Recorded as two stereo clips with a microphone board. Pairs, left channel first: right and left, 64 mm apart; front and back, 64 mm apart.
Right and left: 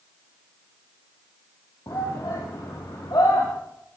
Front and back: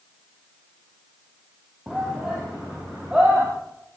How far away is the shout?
About 5 m.